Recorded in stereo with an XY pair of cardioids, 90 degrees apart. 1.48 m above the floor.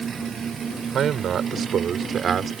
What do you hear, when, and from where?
0.9 s a man speaking: 65° right; by 2.5 s 55° right